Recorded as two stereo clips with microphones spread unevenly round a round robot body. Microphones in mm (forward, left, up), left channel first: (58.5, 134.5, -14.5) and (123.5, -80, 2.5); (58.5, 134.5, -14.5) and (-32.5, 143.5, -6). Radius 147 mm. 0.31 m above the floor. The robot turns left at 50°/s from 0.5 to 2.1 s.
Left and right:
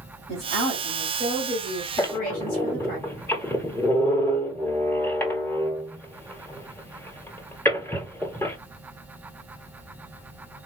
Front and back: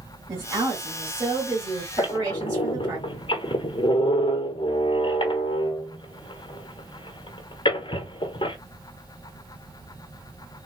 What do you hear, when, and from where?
0.3 s a woman speaking: 150° right, 1.8 m; by 3.0 s 130° left, 1.8 m
2.0 s a squeak: 30° left, 1.0 m; by 8.6 s 25° left, 1.0 m